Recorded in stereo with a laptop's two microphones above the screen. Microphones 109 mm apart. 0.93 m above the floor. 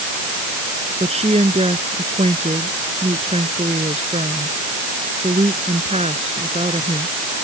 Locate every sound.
1.0 s a woman speaking: 70° right (ahead or behind)